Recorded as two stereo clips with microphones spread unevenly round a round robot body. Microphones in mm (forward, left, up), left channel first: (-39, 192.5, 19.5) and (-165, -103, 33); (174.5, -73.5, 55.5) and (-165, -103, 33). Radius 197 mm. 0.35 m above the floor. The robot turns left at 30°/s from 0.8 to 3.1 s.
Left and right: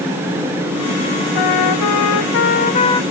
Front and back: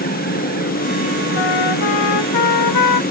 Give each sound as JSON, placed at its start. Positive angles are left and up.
{"t": 1.4, "sound": "a trumpet", "azimuth_deg": 35}